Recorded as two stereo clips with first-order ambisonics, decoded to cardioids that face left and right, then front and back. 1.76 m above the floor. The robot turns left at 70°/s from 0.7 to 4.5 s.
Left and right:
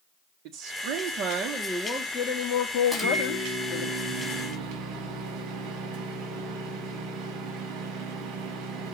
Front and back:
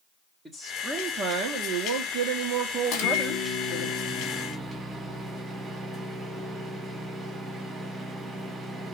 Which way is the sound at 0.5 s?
100° right.